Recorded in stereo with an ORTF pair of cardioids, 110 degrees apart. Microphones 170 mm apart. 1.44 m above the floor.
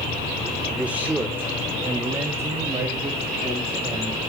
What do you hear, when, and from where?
0.8 s a man speaking: 5° right, 1.0 m; by 4.2 s 20° right, 4.5 m